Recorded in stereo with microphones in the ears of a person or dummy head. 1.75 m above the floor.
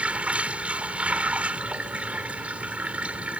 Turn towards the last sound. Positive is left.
turn(degrees=-5)  # may be behind; listen again after turning